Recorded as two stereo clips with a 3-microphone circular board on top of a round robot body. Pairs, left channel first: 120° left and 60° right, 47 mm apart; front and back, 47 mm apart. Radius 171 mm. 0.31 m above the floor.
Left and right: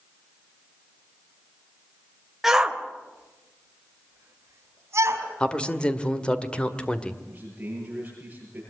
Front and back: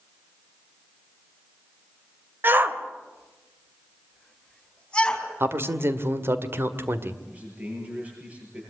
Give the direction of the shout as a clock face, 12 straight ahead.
5 o'clock.